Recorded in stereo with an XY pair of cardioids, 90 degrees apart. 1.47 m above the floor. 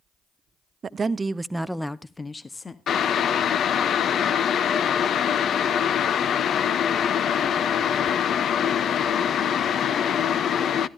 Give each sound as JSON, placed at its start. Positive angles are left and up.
{"t": 0.8, "sound": "a woman speaking", "azimuth_deg": -50, "distance_m": 0.6}
{"t": 2.9, "sound": "boiling", "azimuth_deg": 65, "distance_m": 0.5}